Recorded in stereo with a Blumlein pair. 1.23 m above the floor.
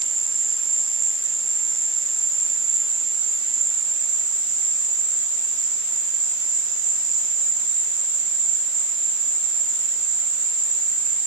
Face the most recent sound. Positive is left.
turn(degrees=-45)